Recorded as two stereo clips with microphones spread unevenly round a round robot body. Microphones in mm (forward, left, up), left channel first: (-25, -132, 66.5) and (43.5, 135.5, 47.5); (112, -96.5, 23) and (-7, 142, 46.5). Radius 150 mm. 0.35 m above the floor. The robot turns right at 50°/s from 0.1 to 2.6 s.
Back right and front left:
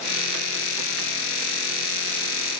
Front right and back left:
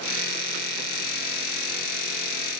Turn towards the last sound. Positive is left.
No sound to turn to.